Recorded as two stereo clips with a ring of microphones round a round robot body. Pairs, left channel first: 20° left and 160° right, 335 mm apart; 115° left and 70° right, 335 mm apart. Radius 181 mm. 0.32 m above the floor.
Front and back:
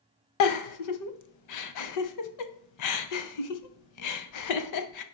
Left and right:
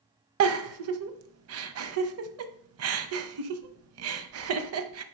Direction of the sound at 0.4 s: 15° right.